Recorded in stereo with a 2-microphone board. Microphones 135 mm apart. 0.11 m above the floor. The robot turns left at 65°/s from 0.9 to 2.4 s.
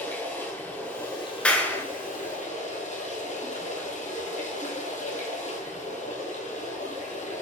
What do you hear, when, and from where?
0.0 s running water: 165° left, 2 m; by 7.4 s 65° left, 2 m
1.4 s a clap: 10° left (ahead or behind), 0.9 m; by 1.9 s 15° left (ahead or behind), 0.9 m